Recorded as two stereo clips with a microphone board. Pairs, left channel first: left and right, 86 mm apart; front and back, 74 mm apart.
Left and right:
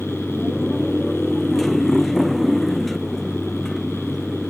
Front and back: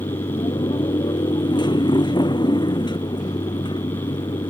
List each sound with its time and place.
0.0 s a motorcycle: 5° left